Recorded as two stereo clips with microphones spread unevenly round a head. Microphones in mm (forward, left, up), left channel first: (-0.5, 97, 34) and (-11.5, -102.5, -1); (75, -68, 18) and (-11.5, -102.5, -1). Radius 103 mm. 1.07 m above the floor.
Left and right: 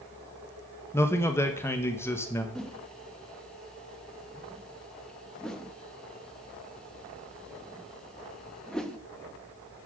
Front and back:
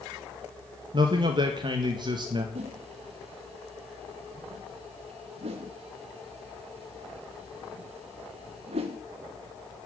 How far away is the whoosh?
About 1.1 m.